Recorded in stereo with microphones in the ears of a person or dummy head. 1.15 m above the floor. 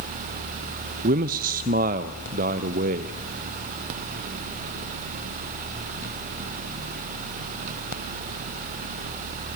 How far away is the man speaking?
About 0.6 m.